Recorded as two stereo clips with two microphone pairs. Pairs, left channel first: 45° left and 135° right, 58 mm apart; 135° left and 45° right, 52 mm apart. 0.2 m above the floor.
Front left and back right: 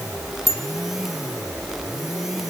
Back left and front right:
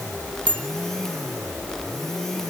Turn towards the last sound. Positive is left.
turn(degrees=-155)